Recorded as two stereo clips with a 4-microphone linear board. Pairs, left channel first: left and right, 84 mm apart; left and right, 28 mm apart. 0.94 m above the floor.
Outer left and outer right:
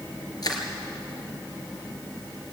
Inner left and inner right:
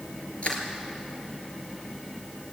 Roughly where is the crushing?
Left.